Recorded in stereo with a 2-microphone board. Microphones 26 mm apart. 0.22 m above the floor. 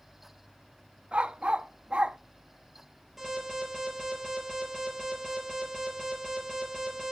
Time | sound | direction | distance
1.1 | a dog barking | 50° right (ahead or behind) | 0.5 m
3.2 | an alarm | 10° right (ahead or behind) | 4 m